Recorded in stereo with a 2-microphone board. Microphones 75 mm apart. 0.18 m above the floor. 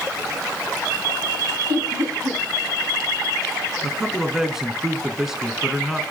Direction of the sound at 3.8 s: 5° right (ahead or behind).